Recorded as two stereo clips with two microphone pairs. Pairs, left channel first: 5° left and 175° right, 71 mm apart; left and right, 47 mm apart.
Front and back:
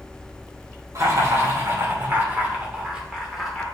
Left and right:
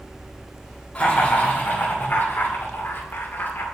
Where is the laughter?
145° left, 2.5 m; by 3.6 s 95° left, 2 m.